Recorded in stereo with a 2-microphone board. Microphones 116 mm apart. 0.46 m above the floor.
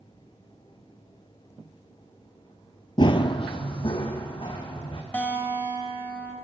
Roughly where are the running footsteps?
Left.